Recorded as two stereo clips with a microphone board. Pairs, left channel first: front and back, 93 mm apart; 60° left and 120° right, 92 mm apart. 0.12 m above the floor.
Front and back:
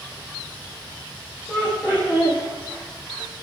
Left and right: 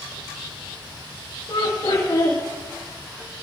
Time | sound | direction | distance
1.5 | laughter | 65° left | 6.5 m